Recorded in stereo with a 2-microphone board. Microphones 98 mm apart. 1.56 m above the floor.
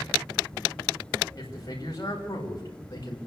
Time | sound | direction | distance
1.4 | a man speaking | 35° left (ahead or behind) | 5 m